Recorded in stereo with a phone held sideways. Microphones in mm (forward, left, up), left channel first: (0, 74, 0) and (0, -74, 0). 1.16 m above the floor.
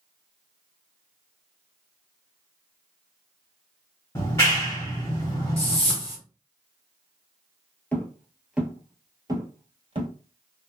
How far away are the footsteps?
About 1.2 m.